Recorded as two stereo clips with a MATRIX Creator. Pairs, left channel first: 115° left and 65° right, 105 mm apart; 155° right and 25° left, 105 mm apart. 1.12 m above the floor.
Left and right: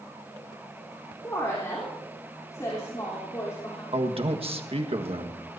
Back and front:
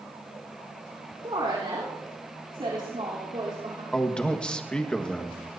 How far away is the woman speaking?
About 3.5 m.